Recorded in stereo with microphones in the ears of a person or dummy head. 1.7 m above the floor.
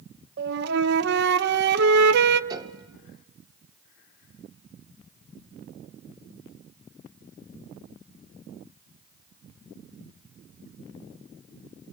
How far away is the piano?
About 0.7 m.